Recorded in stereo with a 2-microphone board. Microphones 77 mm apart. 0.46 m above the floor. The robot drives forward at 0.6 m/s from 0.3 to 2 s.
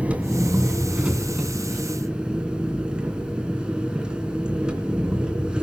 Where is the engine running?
15° right (ahead or behind), 1.9 m; by 5.7 s 10° right (ahead or behind), 3 m.